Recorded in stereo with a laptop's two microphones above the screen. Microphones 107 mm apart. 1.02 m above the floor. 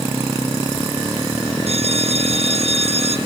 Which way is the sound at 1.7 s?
75° right (ahead or behind).